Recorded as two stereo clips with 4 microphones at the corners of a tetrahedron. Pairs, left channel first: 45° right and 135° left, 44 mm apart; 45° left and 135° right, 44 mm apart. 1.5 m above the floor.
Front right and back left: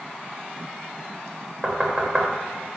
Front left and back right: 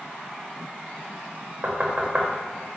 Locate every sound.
1.6 s knocking: 165° right, 0.7 m